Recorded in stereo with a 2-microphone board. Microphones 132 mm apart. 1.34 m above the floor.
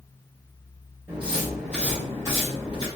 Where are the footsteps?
15° right (ahead or behind), 1.8 m; by 2.9 s 35° left (ahead or behind), 2.5 m.